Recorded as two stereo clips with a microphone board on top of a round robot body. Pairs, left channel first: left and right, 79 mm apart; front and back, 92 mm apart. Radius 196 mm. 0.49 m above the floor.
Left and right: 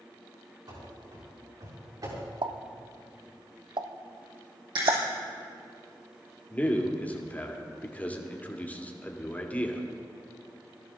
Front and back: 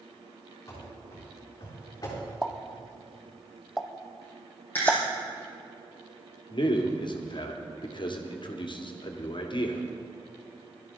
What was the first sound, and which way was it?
Running footsteps, 60° right.